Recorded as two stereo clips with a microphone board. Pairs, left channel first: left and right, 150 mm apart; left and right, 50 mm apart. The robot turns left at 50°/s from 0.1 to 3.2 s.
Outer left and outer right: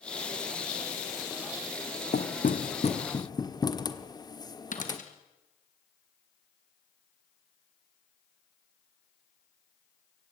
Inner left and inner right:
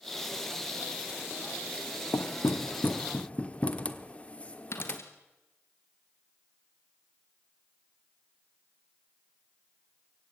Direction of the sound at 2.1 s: 80° left.